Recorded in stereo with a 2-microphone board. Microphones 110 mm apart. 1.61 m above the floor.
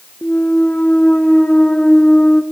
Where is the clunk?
10° left (ahead or behind), 0.6 m.